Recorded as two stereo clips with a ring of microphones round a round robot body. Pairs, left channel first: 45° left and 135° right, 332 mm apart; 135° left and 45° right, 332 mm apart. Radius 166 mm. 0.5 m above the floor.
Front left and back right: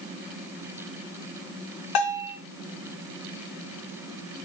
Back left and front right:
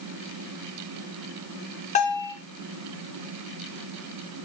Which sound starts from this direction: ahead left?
A bell, at 1.9 s.